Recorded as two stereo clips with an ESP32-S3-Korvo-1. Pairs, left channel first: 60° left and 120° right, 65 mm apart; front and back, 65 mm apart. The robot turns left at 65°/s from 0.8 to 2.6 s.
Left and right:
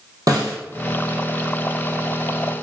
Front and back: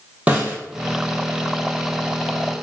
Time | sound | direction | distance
0.3 | a snare drum | 115° right | 1.1 m